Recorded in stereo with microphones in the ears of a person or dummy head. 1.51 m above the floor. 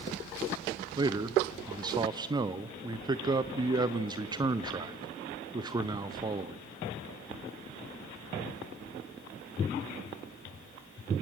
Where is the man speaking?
25° right (ahead or behind), 0.7 m.